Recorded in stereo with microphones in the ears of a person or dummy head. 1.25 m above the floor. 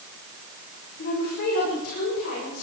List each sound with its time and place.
1.0 s a woman speaking: 55° left (ahead or behind), 5 m; by 2.6 s 60° left (ahead or behind), 6.5 m